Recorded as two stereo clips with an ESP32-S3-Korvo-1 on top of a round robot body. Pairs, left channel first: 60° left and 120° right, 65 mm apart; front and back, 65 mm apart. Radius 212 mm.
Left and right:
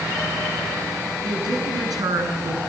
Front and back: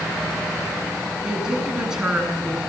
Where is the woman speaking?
100° right, 8.5 m.